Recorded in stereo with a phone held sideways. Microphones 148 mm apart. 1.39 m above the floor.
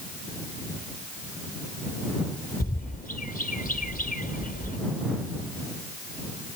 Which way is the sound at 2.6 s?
70° left (ahead or behind).